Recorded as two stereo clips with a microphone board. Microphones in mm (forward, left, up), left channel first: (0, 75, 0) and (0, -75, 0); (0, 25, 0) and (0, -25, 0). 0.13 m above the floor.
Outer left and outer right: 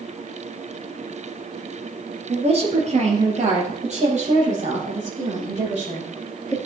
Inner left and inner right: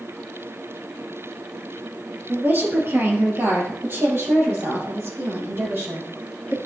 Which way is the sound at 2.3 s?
45° right (ahead or behind).